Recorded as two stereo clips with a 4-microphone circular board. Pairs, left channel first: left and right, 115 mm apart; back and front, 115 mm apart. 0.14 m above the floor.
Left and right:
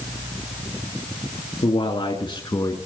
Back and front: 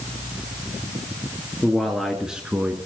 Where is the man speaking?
95° left, 2.5 m; by 2.8 s 70° left, 1.7 m.